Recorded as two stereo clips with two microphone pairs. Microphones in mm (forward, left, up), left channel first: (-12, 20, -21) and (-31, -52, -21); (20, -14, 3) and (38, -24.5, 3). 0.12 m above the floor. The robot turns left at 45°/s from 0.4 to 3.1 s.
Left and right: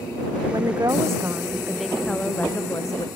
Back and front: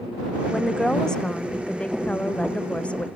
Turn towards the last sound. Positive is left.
turn(degrees=110)